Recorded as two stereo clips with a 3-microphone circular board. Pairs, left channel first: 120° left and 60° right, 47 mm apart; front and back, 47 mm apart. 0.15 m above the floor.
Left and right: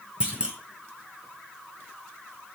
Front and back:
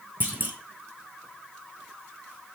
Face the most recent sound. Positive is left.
turn(degrees=-125)